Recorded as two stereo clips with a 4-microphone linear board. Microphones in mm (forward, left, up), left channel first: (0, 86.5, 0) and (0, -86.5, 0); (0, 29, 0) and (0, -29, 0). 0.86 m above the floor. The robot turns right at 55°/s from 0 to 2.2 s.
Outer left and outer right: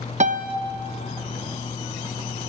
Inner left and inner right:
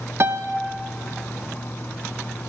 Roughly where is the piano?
Right.